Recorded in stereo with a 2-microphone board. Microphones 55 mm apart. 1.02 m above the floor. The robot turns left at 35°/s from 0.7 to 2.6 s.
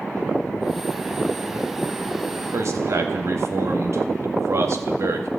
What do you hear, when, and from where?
2.5 s a man speaking: 60° right (ahead or behind), 1.5 m; by 5.3 s 65° right (ahead or behind), 1.5 m